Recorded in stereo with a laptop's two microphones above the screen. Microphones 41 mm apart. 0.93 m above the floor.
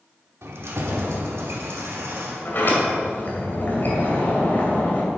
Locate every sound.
0.4 s keys jangling: 85° right, 1.3 m; by 2.7 s 90° right, 2.5 m
2.5 s a sliding door: 50° left (ahead or behind), 2.5 m